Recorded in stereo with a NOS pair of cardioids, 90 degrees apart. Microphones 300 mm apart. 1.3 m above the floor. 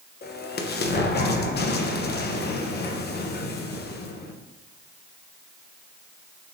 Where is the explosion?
35° left, 0.7 m.